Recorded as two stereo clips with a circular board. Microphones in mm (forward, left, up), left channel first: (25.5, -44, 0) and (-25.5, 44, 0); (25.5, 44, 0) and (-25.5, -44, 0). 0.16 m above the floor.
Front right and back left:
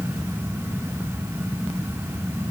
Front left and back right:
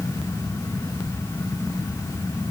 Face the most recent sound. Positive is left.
No sound to turn to.